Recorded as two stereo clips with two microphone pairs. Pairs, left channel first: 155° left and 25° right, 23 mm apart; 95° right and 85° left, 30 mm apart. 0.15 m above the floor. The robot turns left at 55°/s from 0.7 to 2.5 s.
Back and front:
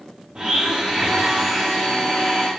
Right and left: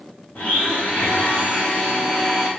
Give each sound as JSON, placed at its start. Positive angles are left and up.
{"t": 0.3, "sound": "a blender", "azimuth_deg": -70, "distance_m": 4.0}